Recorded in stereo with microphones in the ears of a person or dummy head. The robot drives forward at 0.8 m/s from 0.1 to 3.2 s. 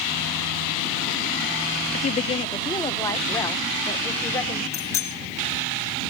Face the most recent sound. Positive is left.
turn(degrees=15)  # may be behind; listen again after turning